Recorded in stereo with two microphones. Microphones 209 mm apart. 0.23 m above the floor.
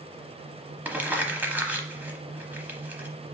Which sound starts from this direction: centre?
Crumpling, at 0.8 s.